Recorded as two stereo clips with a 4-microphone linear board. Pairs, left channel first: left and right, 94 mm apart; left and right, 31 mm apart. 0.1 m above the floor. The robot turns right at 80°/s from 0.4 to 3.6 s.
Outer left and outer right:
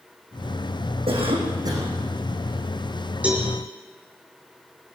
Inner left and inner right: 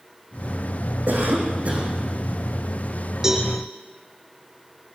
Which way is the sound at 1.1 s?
95° right.